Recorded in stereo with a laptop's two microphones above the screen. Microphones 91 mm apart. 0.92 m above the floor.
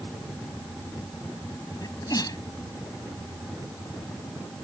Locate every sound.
1.8 s a sneeze: 45° left (ahead or behind)